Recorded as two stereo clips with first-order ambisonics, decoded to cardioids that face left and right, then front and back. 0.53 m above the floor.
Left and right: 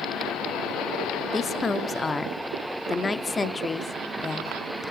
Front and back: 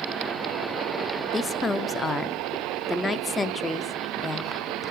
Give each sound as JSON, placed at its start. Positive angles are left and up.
{"t": 1.3, "sound": "a woman speaking", "azimuth_deg": 50, "distance_m": 0.7}